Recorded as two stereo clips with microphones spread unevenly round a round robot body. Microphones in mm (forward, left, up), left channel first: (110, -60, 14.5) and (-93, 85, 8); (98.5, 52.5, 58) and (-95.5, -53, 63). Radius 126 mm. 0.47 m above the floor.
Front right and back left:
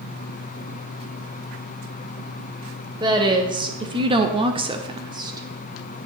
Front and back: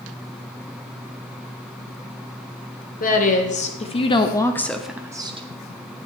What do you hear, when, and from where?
3.0 s a woman speaking: 75° left, 1.9 m; by 5.5 s 165° right, 1.0 m